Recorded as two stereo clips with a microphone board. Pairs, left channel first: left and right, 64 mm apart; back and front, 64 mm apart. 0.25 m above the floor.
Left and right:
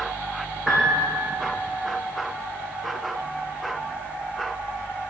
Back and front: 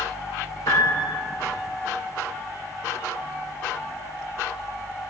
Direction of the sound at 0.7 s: 170° right.